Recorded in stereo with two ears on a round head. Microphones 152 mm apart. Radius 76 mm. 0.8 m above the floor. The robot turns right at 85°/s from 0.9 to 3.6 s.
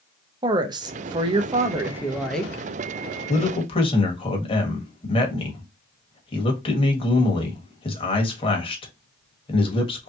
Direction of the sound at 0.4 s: 25° right (ahead or behind).